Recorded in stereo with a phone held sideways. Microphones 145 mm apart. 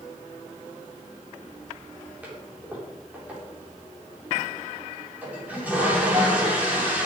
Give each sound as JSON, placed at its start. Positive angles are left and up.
{"t": 2.2, "sound": "a toilet flushing", "side_deg": -10, "distance_m": 3.5}